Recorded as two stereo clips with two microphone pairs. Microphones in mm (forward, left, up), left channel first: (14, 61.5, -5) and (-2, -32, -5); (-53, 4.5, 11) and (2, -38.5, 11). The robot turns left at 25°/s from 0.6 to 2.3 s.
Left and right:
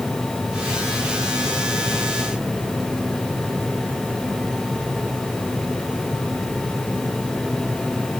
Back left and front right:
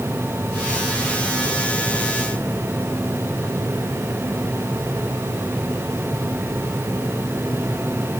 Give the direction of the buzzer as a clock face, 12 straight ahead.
No buzzer in this recording.